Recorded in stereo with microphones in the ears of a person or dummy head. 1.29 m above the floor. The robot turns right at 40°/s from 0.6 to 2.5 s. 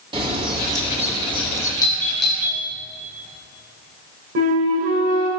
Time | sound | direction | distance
0.1 | a bird | 25° right | 1.8 m
1.8 | a doorbell | 15° left (ahead or behind) | 1.4 m
4.3 | a flute | 50° right (ahead or behind) | 1.9 m